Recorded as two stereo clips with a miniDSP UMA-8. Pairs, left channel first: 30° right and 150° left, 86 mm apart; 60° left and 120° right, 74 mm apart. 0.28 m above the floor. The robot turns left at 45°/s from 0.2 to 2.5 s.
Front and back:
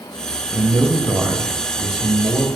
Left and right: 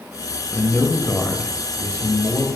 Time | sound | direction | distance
0.5 | a man speaking | 140° left | 1.1 m